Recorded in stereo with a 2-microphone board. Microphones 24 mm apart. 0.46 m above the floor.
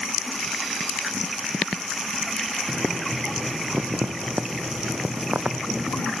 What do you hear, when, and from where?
2.7 s boiling: 80° right